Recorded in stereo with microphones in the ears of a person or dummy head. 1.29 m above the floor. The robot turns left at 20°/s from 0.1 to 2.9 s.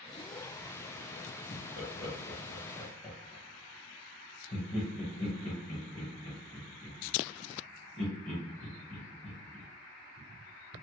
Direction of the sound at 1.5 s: 60° left (ahead or behind).